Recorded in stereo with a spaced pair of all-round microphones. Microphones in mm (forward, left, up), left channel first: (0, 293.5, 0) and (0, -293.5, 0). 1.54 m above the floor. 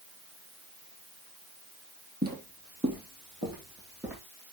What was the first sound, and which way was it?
Footsteps, 15° right (ahead or behind).